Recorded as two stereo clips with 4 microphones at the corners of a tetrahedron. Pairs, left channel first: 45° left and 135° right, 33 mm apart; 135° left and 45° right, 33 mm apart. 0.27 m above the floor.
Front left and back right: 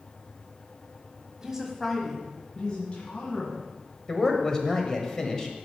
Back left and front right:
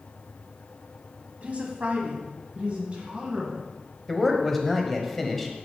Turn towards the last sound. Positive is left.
turn(degrees=65)